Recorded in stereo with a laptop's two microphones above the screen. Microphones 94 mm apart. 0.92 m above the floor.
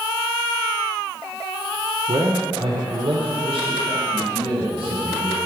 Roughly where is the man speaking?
Right.